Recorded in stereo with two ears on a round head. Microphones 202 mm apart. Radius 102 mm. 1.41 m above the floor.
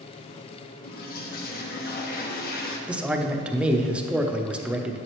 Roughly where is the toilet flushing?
Left.